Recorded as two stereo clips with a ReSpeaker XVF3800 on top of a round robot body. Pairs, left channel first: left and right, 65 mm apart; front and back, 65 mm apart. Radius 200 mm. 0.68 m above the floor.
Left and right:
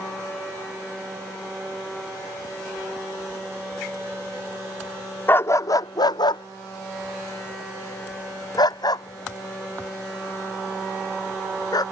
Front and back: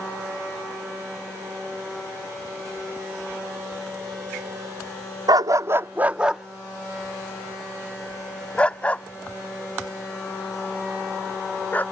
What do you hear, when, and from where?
5.3 s a dog barking: 155° left; by 11.8 s 65° left